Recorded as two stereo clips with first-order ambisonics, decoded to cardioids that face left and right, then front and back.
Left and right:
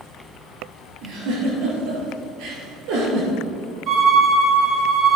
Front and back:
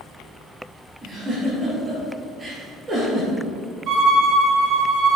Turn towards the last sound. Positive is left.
turn(degrees=-135)